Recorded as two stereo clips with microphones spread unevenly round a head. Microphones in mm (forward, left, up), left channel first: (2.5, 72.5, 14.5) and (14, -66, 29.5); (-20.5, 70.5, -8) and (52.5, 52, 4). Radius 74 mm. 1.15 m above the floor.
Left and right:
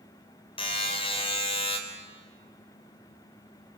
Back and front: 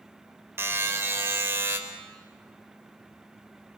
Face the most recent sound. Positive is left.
turn(degrees=40)